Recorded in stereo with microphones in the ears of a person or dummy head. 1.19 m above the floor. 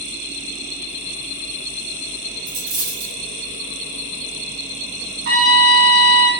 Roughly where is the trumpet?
Right.